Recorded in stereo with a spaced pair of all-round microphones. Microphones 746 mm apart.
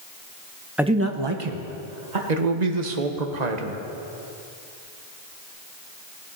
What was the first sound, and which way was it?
A man speaking, centre (ahead or behind).